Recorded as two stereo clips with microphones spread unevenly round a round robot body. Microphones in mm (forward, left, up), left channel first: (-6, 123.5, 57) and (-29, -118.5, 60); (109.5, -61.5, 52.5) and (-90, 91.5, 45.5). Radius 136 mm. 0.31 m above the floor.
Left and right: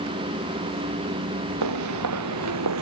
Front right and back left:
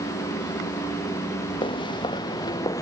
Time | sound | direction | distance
1.6 | footsteps | 110° right | ?